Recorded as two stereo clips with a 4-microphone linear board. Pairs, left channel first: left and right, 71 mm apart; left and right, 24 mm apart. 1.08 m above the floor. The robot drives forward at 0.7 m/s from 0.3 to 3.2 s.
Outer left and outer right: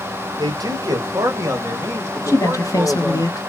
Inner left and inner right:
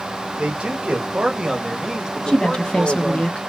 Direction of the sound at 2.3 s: 40° left (ahead or behind).